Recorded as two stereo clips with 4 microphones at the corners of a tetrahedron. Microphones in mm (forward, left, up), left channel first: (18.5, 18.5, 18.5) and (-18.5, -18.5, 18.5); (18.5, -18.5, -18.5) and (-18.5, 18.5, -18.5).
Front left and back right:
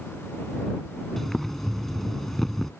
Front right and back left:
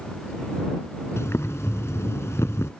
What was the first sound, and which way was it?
Boiling, 40° right.